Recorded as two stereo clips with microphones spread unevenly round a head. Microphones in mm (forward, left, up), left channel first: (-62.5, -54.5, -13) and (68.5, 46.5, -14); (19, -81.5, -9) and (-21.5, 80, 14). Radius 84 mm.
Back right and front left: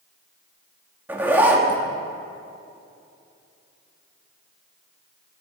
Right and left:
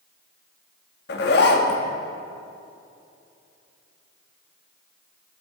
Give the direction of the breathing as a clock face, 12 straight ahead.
I don't hear breathing.